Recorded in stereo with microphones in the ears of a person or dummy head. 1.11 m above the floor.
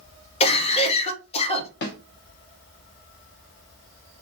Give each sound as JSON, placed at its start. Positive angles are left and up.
{"t": 0.4, "sound": "a cough", "side_deg": 30, "distance_m": 0.8}
{"t": 1.8, "sound": "a snare drum", "side_deg": 45, "distance_m": 0.8}